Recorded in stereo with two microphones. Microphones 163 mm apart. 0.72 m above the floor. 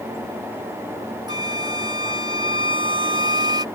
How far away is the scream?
No scream in this recording.